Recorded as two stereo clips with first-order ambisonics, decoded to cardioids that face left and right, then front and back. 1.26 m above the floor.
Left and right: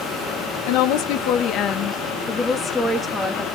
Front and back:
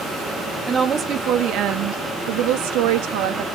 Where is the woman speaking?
110° left, 1.2 m; by 3.4 s straight behind, 2 m.